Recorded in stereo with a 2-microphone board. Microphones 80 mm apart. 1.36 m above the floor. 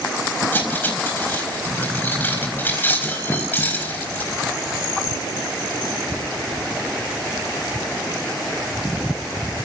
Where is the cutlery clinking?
25° left (ahead or behind), 4 m.